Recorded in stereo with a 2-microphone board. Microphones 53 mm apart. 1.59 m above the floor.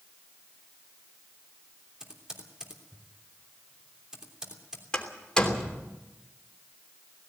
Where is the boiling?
I don't hear boiling.